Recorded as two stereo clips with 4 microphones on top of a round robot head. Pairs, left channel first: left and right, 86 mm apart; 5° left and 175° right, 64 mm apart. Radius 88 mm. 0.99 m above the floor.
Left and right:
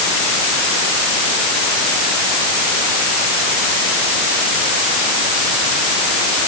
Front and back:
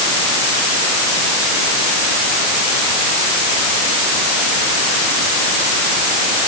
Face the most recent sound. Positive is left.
No sound to turn to.